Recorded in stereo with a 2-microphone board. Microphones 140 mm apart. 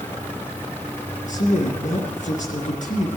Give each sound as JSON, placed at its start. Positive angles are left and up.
{"t": 1.3, "sound": "a man speaking", "side_deg": 65, "distance_m": 3.0}